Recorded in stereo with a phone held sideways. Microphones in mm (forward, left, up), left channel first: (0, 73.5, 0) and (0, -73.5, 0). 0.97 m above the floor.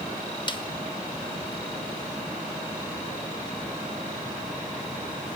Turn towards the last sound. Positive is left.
turn(degrees=35)  # may be behind; listen again after turning